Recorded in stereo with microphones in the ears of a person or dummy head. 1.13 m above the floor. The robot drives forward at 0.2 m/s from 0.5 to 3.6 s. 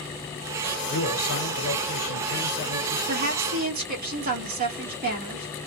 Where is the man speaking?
60° left (ahead or behind), 0.9 m; by 3.0 s 85° left, 0.8 m.